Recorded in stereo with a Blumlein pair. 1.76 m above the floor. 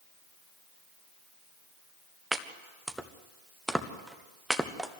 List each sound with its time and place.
2.3 s chopping: 5° right, 1.4 m